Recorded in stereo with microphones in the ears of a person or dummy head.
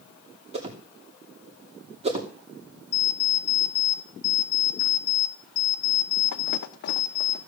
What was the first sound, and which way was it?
A whoosh, 35° right (ahead or behind).